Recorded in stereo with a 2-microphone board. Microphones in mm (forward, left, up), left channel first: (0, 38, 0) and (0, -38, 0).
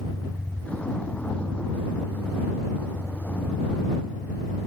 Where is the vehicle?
15° left (ahead or behind).